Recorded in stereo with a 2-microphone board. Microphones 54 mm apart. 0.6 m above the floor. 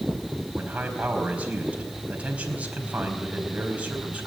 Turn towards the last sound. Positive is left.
turn(degrees=-25)  # may be behind; listen again after turning